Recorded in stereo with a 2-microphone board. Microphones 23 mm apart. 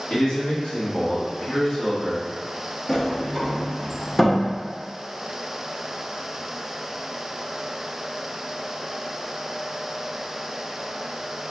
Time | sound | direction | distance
0.1 | a man speaking | 80° left | 1.8 m
2.9 | a sliding door | 15° left (ahead or behind) | 0.7 m